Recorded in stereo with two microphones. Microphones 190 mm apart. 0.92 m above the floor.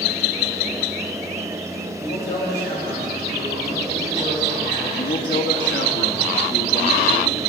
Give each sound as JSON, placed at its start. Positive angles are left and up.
{"t": 2.0, "sound": "a man speaking", "side_deg": 70, "distance_m": 3.5}
{"t": 4.9, "sound": "a man speaking", "side_deg": 75, "distance_m": 1.1}